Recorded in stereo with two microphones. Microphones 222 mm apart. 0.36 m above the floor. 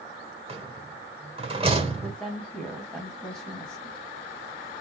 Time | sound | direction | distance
0.5 | a rattle | 25° right (ahead or behind) | 1.7 m
2.0 | a woman speaking | 5° left (ahead or behind) | 2.5 m